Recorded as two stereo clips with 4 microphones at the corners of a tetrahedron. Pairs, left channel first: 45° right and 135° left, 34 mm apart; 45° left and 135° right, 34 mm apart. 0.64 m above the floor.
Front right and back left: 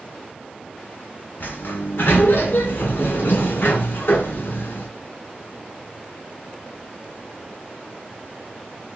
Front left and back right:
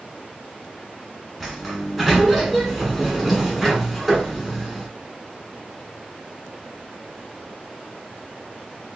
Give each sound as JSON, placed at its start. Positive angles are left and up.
{"t": 1.4, "sound": "a sliding door", "azimuth_deg": -55, "distance_m": 1.1}